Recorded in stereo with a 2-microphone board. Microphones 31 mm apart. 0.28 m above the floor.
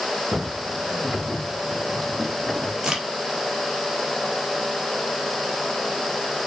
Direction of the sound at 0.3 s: 35° right (ahead or behind).